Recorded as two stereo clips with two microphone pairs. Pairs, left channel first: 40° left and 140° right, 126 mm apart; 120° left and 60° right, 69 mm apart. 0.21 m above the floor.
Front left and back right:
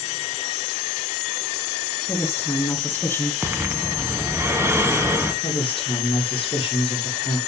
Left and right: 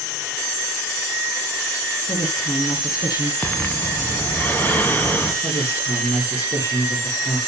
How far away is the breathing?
About 1.6 m.